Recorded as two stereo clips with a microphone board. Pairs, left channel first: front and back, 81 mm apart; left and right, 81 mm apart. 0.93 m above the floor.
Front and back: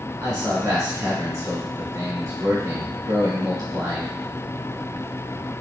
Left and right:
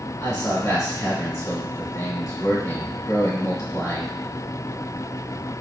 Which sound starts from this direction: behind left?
A man speaking, at 0.2 s.